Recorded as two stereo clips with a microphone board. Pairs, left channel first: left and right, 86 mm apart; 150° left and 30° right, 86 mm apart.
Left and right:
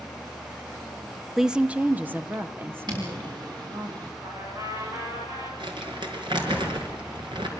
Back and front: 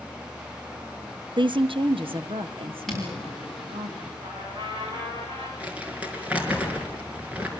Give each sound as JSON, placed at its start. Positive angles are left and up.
{"t": 1.4, "sound": "a woman speaking", "azimuth_deg": -5, "distance_m": 0.6}
{"t": 2.9, "sound": "footsteps", "azimuth_deg": -120, "distance_m": 8.5}
{"t": 4.2, "sound": "a trumpet", "azimuth_deg": -45, "distance_m": 7.0}
{"t": 5.6, "sound": "crumpling", "azimuth_deg": -105, "distance_m": 4.5}